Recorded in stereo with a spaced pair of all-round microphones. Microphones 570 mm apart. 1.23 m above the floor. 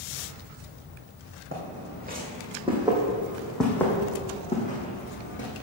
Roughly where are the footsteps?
Right.